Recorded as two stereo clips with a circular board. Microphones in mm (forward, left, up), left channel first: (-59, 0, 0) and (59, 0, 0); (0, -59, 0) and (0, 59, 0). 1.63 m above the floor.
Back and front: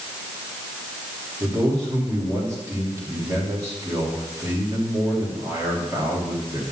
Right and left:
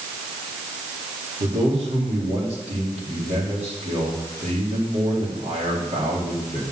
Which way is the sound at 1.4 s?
65° left.